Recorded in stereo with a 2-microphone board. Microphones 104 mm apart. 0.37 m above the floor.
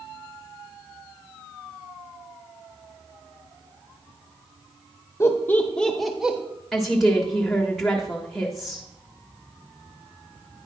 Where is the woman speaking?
5° left (ahead or behind), 1.2 m.